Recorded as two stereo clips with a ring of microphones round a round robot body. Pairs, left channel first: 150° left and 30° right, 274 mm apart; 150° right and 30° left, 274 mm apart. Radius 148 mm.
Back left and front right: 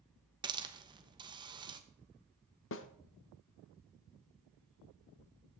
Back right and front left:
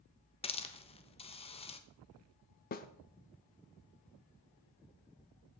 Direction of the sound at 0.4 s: 95° right.